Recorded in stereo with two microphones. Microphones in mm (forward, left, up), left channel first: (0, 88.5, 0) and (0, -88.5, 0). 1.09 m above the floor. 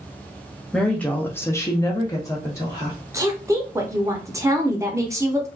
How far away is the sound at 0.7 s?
About 0.8 m.